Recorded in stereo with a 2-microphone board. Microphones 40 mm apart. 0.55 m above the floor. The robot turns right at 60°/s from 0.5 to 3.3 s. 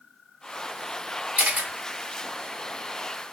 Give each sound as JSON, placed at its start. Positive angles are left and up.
{"t": 1.4, "sound": "a camera shutter", "side_deg": -45, "distance_m": 1.3}